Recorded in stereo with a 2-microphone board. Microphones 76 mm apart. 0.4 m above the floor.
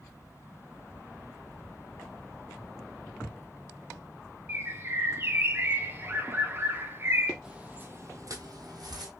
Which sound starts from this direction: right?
A bird, at 4.5 s.